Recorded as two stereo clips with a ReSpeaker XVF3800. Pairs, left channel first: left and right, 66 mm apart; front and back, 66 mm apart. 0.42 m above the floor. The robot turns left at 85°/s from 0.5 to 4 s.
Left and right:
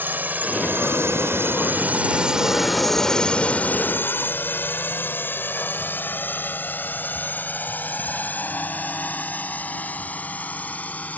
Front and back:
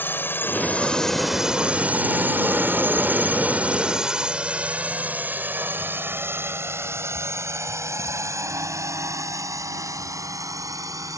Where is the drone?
45° right; by 11.2 s 155° left.